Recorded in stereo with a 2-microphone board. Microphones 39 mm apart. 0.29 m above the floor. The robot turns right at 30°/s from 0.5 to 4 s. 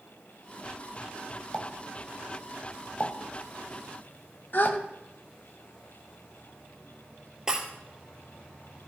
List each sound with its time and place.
1.5 s a pop: 30° left (ahead or behind), 1.3 m
4.5 s a gasp: 55° left (ahead or behind), 0.7 m
7.5 s breaking glass: 15° right (ahead or behind), 1.8 m